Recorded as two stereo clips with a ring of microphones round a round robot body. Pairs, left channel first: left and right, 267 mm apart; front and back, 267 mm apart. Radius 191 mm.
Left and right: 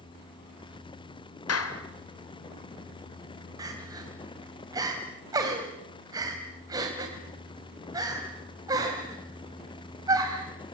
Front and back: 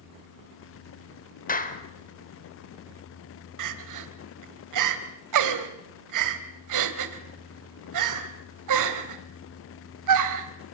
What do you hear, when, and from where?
1.5 s a clap: 60° left, 3.5 m
3.6 s crying: 170° right, 2 m